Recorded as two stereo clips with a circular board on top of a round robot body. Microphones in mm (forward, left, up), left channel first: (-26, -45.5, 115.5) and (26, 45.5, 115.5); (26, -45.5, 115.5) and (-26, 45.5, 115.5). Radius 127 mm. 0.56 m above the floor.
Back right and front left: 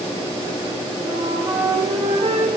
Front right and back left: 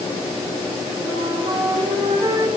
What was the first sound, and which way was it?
A flute, 75° left.